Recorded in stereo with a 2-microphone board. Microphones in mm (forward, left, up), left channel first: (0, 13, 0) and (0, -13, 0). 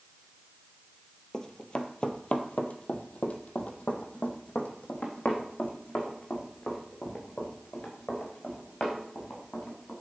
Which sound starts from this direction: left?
Running footsteps, at 1.3 s.